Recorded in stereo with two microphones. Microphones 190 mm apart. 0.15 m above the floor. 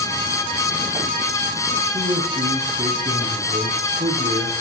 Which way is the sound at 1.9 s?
35° right (ahead or behind).